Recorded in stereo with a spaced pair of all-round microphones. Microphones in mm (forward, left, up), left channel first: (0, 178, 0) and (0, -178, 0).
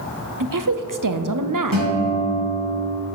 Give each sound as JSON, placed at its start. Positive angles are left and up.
{"t": 0.4, "sound": "a woman speaking", "side_deg": -65, "distance_m": 0.6}
{"t": 1.7, "sound": "a guitar", "side_deg": -80, "distance_m": 1.9}